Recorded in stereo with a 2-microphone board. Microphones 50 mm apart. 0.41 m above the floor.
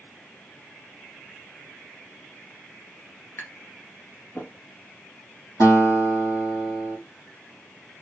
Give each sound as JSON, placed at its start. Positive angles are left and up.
{"t": 3.4, "sound": "tapping", "side_deg": 55, "distance_m": 1.9}
{"t": 5.6, "sound": "a guitar", "side_deg": 75, "distance_m": 4.0}